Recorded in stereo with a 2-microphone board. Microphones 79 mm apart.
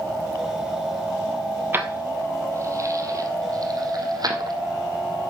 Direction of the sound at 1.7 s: 30° right (ahead or behind).